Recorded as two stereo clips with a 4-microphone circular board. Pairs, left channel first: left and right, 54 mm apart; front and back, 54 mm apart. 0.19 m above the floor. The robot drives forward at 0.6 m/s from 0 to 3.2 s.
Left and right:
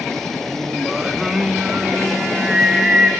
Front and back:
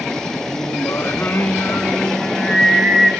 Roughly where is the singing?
Ahead.